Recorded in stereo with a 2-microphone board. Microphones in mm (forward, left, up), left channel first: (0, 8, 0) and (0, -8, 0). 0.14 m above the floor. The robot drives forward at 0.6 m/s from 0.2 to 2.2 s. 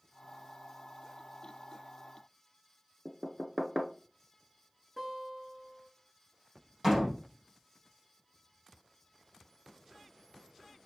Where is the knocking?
35° right (ahead or behind), 1.3 m.